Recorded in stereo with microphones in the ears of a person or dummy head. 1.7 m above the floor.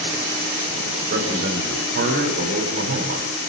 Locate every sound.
1.1 s a man speaking: 50° right (ahead or behind), 4 m